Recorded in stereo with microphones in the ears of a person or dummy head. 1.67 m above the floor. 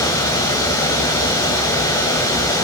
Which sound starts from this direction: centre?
Running water, at 0.0 s.